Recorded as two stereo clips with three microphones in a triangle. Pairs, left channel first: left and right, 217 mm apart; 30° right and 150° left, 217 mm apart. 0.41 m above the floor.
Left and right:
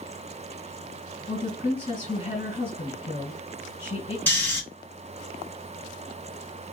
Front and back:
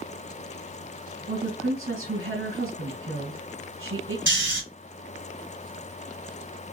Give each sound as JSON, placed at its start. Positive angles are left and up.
{"t": 1.3, "sound": "a woman speaking", "azimuth_deg": 150, "distance_m": 3.0}
{"t": 4.3, "sound": "snoring", "azimuth_deg": 170, "distance_m": 2.5}